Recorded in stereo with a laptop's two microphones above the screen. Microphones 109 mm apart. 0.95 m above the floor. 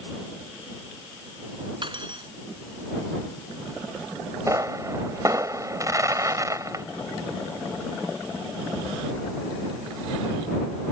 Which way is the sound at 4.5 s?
30° right (ahead or behind).